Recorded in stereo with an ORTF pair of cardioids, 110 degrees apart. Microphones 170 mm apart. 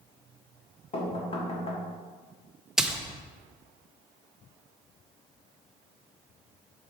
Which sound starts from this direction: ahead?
A splash, at 2.8 s.